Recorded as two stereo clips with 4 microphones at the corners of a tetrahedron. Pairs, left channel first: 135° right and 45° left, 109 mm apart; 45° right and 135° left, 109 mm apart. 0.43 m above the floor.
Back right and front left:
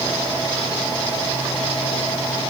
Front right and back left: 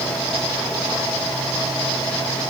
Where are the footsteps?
I don't hear footsteps.